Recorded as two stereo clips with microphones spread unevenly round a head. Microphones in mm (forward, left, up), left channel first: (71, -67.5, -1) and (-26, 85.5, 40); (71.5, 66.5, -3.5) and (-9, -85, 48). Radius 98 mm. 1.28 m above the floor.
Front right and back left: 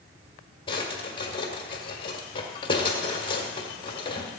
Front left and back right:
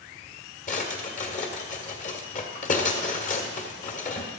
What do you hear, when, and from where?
0.7 s a drawer: 10° left, 1.7 m